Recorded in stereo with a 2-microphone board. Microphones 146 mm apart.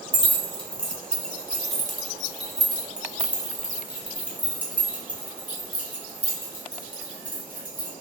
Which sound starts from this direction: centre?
Keys jangling, at 0.1 s.